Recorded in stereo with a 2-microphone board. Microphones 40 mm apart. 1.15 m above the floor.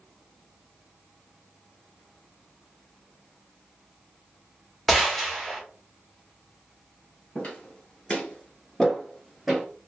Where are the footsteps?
30° left (ahead or behind), 1.6 m; by 9.6 s 5° right (ahead or behind), 1.7 m.